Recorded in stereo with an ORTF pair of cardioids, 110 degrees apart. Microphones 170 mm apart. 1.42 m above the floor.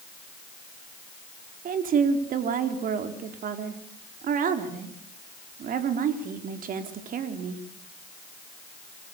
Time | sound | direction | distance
1.6 | a woman speaking | 55° right | 4 m